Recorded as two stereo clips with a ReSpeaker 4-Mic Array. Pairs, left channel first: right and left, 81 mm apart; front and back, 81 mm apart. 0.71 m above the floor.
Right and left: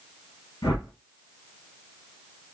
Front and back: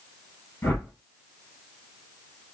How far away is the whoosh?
About 3.5 m.